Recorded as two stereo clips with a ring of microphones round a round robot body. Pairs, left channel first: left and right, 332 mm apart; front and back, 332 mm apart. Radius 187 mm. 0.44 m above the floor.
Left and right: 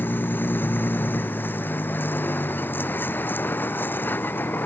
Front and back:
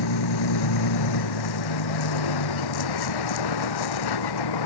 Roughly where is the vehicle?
Ahead.